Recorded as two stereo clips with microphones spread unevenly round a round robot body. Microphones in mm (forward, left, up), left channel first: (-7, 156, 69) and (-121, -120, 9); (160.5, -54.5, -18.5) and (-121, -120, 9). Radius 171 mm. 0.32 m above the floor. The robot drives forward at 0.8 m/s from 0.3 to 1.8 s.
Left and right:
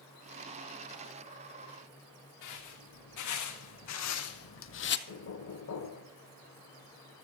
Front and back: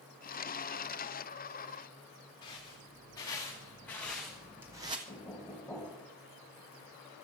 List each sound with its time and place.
2.4 s footsteps: 90° left, 3 m; by 5.0 s 120° left, 0.9 m
5.1 s knocking: 95° left, 1.5 m